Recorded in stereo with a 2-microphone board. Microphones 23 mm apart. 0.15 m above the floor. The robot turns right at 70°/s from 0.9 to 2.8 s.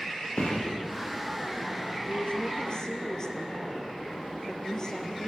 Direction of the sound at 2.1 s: 95° left.